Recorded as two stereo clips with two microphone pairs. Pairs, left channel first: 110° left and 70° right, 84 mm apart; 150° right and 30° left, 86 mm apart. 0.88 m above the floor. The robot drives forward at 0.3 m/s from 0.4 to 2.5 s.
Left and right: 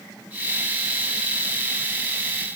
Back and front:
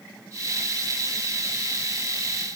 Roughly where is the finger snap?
I don't hear a finger snap.